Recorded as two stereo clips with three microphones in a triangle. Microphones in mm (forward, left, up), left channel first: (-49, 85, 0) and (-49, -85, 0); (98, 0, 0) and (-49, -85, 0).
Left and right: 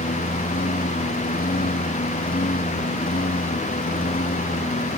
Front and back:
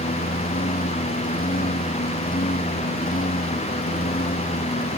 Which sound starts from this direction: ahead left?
A lawn mower, at 0.0 s.